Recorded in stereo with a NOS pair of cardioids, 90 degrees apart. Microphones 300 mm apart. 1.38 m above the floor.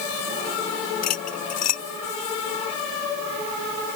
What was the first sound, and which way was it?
Cutlery clinking, 65° left.